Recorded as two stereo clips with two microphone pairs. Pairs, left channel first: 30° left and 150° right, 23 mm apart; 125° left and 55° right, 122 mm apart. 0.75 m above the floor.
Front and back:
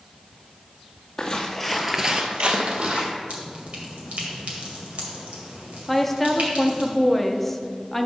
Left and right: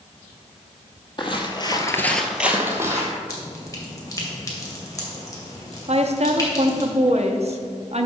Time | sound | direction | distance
1.2 | footsteps | 80° left | 1.3 m
3.3 | dripping | 175° right | 1.9 m
5.9 | a woman speaking | 50° right | 0.7 m